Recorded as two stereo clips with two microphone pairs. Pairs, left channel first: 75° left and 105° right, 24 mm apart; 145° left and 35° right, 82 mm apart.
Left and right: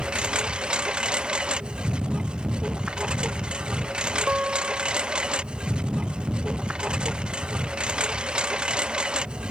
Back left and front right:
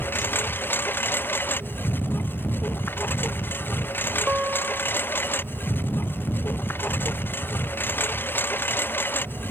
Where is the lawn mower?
150° right.